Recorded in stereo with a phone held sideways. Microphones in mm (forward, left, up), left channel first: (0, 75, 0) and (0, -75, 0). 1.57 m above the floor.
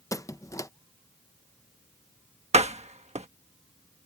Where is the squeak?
20° left (ahead or behind).